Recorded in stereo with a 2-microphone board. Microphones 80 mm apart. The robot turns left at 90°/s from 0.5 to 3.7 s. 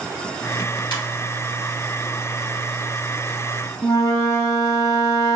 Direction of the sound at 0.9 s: 65° left (ahead or behind).